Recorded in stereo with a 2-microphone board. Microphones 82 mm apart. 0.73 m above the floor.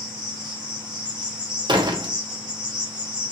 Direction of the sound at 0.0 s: 60° right (ahead or behind).